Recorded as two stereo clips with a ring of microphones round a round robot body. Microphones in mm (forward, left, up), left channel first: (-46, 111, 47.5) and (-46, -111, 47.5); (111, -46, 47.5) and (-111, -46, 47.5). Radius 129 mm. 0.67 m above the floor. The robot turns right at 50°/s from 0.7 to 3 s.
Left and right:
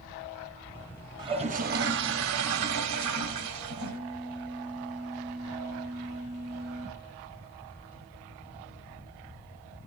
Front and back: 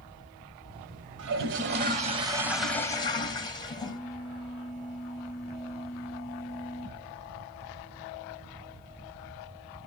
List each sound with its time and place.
1.2 s a toilet flushing: 160° right, 1.1 m; by 4.0 s 70° right, 1.1 m
3.8 s a phone buzzing: 150° left, 6.5 m